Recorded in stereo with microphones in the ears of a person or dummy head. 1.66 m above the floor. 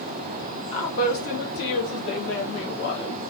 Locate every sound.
0.7 s a woman speaking: 25° left (ahead or behind), 0.9 m; by 3.2 s 70° left (ahead or behind), 2 m